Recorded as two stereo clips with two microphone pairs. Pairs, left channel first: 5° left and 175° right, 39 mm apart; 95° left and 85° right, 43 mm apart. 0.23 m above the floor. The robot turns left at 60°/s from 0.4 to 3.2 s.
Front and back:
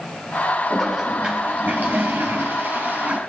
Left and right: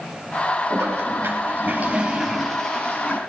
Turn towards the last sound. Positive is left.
turn(degrees=135)